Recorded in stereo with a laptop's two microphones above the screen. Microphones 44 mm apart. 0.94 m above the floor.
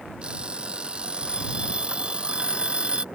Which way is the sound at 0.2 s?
25° right (ahead or behind).